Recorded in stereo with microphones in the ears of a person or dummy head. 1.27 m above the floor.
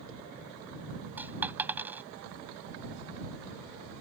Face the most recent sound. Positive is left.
turn(degrees=-5)  # may be behind; listen again after turning